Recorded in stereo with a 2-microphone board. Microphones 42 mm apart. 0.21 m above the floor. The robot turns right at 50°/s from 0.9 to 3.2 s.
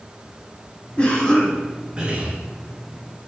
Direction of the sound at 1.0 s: 150° left.